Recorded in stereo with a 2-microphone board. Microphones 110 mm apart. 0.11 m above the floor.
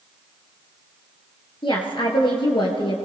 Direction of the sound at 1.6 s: 50° left (ahead or behind).